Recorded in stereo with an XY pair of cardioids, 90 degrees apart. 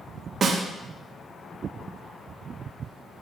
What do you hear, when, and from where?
0.4 s a snare drum: 55° right, 0.9 m